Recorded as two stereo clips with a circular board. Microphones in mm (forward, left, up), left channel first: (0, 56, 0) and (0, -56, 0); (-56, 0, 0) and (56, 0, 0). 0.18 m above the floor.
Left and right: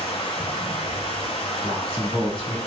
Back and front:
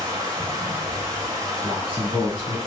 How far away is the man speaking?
About 1.2 m.